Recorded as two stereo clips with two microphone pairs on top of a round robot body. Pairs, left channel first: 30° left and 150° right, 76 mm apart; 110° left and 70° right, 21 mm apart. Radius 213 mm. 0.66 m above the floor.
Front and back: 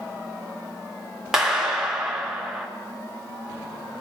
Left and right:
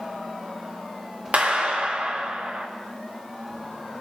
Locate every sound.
1.3 s a clap: 65° right, 4 m